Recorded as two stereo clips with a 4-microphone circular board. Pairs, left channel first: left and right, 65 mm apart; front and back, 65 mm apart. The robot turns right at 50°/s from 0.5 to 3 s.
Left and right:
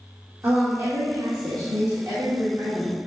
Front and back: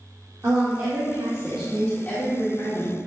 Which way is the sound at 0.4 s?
135° right.